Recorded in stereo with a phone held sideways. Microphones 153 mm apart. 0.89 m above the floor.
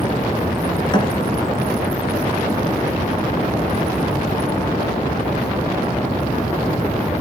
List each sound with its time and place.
0.9 s a thud: 30° left (ahead or behind), 2 m